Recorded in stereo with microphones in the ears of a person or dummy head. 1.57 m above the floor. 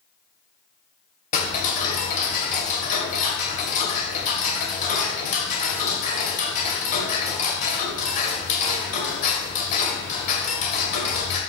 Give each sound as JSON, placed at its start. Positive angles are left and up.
{"t": 1.3, "sound": "ticking", "side_deg": 45, "distance_m": 2.5}